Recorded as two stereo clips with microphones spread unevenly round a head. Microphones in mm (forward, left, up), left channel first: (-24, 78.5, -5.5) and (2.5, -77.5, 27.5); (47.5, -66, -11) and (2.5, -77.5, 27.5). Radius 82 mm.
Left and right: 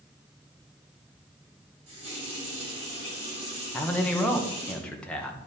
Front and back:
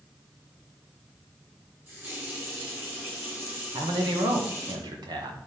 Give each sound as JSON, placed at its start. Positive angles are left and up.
{"t": 1.9, "sound": "a running tap", "azimuth_deg": -130, "distance_m": 4.0}
{"t": 3.7, "sound": "a man speaking", "azimuth_deg": 180, "distance_m": 1.4}